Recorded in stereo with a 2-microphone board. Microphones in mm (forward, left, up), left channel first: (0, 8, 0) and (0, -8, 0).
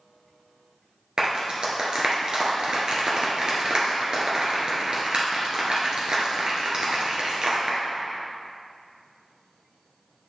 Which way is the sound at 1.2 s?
55° right (ahead or behind).